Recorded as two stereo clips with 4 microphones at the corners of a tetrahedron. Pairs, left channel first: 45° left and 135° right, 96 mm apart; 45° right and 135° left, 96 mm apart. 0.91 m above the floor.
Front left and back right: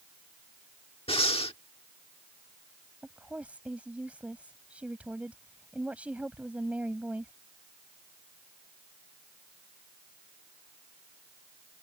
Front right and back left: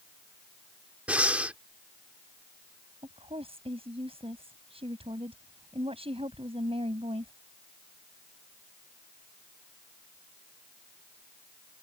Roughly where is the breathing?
Ahead left.